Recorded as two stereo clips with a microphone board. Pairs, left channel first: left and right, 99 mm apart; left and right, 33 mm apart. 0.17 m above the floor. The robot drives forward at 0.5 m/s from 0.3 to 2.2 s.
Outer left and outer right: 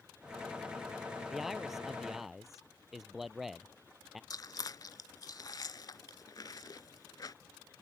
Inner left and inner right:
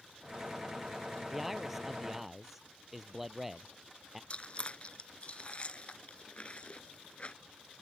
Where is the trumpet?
No trumpet in this recording.